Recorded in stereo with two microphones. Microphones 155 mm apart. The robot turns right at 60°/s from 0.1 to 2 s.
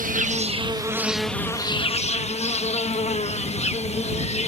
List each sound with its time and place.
0.0 s an insect: 65° right; by 4.5 s 45° left